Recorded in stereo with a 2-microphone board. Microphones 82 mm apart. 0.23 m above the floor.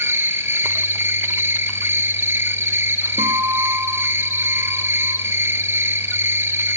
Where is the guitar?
75° right (ahead or behind), 7.5 m.